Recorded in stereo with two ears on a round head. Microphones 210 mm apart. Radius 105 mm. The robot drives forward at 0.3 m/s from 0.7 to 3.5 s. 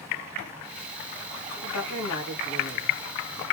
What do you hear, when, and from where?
1.6 s a woman speaking: 80° left, 2.5 m; by 3.0 s 70° left (ahead or behind), 2.5 m